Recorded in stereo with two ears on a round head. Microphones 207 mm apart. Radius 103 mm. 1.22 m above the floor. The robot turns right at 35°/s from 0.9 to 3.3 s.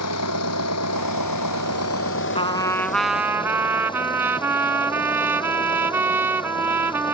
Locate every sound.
0.0 s an engine running: 75° left; by 7.1 s 160° left
2.4 s a trumpet: 155° left; by 7.1 s 170° right